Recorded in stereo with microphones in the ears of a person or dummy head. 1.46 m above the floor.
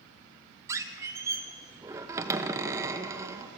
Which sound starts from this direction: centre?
A squeak, at 0.7 s.